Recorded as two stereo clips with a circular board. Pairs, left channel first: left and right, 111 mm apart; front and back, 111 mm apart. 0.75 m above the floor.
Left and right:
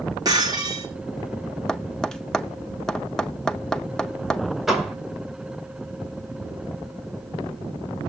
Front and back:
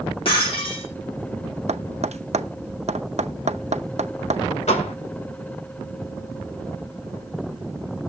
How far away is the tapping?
About 0.6 m.